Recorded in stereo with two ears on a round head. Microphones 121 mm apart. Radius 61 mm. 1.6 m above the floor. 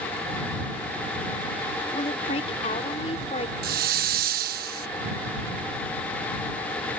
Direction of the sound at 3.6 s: 75° right (ahead or behind).